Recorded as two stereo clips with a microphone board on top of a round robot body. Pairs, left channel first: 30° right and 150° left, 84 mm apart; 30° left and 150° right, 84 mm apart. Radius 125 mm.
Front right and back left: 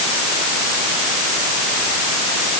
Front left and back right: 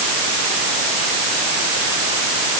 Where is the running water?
No running water in this recording.